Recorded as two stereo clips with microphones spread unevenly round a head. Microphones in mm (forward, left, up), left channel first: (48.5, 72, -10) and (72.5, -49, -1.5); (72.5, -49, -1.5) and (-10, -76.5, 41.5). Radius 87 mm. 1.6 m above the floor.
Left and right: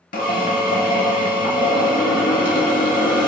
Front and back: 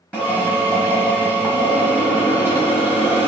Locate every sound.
0.1 s a drill: 100° left, 1.0 m